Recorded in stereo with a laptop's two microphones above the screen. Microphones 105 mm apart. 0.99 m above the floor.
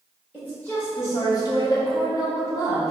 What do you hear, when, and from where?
0.3 s a woman speaking: 10° left (ahead or behind), 1.0 m; by 2.9 s 30° left (ahead or behind), 1.2 m